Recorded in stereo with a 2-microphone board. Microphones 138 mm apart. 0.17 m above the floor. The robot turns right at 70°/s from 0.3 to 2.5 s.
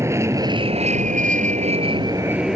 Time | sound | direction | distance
0.0 | an aircraft | 155° right | ?